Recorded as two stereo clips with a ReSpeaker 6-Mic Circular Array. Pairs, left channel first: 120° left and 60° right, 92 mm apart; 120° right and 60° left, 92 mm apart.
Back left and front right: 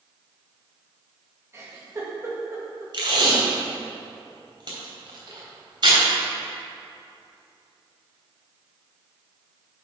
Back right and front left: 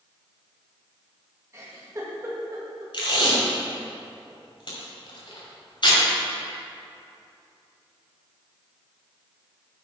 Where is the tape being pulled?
90° right, 2.5 m.